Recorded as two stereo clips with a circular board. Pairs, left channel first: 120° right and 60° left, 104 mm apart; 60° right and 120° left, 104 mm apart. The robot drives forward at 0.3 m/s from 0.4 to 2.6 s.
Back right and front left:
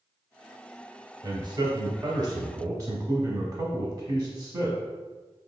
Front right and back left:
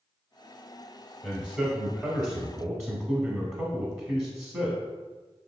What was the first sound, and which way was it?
A man speaking, 40° left.